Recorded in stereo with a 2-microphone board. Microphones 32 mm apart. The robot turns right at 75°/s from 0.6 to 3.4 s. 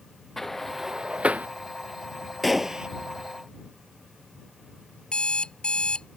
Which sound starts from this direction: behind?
A gunshot, at 2.4 s.